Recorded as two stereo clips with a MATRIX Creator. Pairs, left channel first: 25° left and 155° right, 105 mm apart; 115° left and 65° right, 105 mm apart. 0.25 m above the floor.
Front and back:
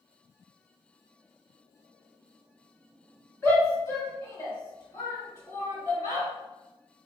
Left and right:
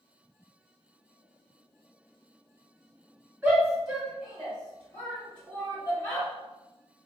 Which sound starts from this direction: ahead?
A shout, at 3.4 s.